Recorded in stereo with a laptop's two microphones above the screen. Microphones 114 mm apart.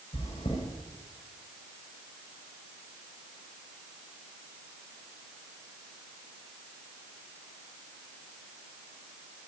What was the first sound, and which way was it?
Chewing, 65° left (ahead or behind).